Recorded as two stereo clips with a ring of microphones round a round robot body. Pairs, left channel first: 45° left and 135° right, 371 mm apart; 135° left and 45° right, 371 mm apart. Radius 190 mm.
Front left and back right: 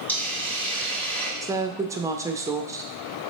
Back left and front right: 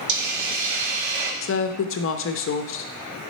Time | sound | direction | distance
0.1 | a hiss | 40° right | 1.2 m
1.4 | a woman speaking | 150° left | 0.6 m